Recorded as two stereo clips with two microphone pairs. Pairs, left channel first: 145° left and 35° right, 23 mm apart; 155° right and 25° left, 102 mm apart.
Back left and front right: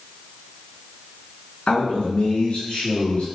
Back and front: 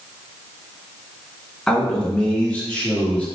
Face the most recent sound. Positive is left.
turn(degrees=130)